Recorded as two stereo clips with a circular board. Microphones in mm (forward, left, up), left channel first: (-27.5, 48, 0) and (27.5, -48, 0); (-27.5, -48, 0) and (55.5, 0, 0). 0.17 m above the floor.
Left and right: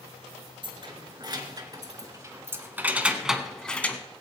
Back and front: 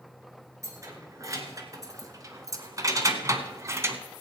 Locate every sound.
0.6 s keys jangling: 25° right, 1.8 m; by 4.0 s 60° left, 1.0 m